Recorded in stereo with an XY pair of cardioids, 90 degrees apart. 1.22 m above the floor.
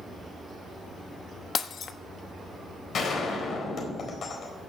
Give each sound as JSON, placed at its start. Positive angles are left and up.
{"t": 1.6, "sound": "breaking glass", "azimuth_deg": 65, "distance_m": 1.1}
{"t": 2.9, "sound": "a gunshot", "azimuth_deg": 65, "distance_m": 4.0}